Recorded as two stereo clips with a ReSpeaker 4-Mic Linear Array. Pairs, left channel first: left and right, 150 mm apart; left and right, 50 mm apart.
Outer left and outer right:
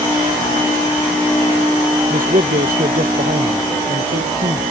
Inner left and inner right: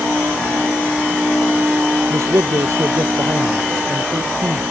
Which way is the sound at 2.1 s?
70° right (ahead or behind).